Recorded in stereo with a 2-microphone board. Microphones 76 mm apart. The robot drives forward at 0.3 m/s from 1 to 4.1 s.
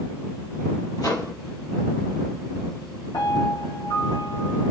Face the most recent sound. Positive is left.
turn(degrees=80)